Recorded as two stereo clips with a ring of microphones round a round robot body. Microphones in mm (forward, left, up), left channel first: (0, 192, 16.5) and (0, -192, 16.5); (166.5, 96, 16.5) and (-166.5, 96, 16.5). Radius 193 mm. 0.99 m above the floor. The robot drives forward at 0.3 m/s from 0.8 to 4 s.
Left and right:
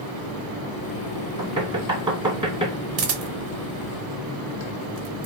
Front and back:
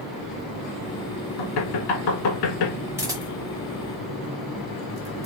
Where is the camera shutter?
105° right, 0.8 m; by 5.3 s 135° right, 0.9 m.